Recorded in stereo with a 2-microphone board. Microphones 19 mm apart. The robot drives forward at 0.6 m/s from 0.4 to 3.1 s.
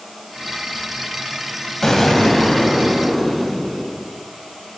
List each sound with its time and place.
1.8 s an explosion: 30° left (ahead or behind), 0.6 m; by 4.0 s 15° left (ahead or behind), 1.1 m